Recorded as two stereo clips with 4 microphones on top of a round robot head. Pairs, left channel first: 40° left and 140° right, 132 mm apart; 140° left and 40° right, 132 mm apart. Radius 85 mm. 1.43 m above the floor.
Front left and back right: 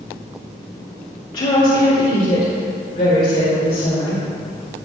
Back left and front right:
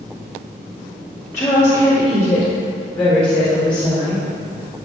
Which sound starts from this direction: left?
A woman speaking, at 1.3 s.